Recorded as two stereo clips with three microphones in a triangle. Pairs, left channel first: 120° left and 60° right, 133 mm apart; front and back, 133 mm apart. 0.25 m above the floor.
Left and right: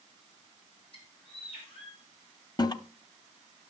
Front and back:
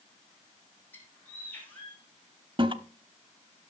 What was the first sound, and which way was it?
A bird, 75° left.